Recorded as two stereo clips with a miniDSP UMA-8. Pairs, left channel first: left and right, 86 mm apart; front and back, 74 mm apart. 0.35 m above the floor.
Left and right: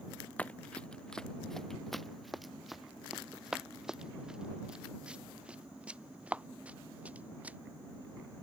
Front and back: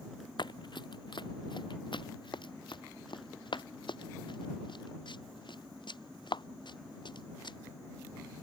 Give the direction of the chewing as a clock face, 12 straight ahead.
I don't hear chewing.